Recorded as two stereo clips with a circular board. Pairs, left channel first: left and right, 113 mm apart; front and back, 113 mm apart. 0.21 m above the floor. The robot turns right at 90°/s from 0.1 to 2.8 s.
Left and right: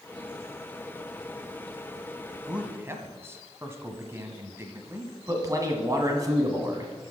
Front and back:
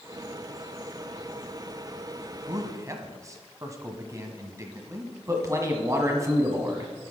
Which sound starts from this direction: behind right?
A man speaking, at 5.3 s.